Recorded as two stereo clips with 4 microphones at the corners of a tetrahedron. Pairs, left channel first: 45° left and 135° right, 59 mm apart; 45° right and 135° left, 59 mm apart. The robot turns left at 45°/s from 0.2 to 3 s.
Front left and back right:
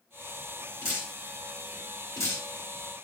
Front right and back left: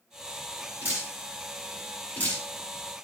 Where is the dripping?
80° left, 3.5 m; by 2.5 s 5° left, 3.5 m.